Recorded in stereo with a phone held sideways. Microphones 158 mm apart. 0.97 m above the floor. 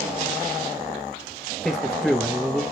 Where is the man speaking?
Centre (ahead or behind), 1.0 m.